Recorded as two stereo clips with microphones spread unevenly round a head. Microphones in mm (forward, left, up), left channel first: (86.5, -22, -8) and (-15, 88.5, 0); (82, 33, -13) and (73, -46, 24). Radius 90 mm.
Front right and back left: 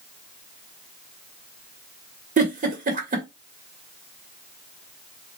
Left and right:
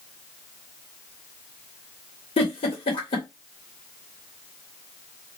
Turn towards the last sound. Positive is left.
turn(degrees=100)